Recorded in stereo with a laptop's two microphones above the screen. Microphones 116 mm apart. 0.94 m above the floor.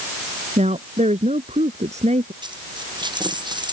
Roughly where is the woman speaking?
Right.